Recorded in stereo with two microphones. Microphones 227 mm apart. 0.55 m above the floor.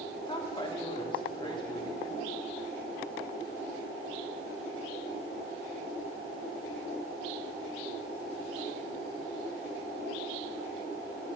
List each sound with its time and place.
0.3 s a woman speaking: 20° left (ahead or behind), 1.0 m